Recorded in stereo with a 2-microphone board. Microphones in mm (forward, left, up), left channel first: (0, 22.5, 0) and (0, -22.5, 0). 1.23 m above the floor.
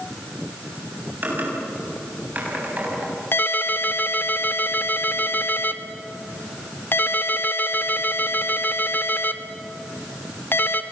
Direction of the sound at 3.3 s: 50° left (ahead or behind).